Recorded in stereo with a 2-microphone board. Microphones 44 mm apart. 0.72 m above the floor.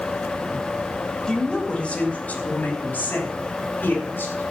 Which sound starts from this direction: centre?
A woman speaking, at 1.3 s.